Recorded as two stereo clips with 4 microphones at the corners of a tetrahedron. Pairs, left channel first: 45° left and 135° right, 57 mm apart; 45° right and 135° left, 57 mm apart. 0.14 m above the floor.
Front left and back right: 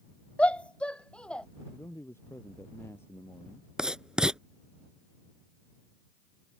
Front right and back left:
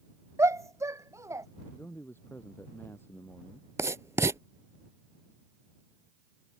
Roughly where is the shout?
Behind left.